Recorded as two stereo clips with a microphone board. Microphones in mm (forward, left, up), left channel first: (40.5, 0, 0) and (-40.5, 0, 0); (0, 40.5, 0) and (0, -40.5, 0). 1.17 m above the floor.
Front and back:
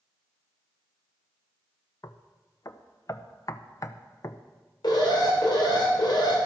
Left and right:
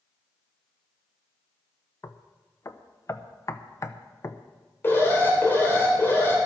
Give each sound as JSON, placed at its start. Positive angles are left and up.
{"t": 2.0, "sound": "knocking", "azimuth_deg": 45, "distance_m": 0.7}
{"t": 4.8, "sound": "an alarm", "azimuth_deg": 30, "distance_m": 3.5}